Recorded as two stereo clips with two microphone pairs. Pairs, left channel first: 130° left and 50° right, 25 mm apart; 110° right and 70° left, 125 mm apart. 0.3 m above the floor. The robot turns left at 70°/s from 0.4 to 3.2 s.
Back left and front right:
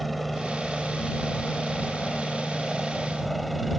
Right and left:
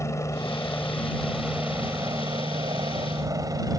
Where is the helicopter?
140° right; by 3.8 s 40° left.